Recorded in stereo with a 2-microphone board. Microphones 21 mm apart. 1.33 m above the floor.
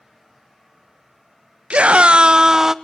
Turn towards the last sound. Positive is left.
turn(degrees=-25)  # may be behind; listen again after turning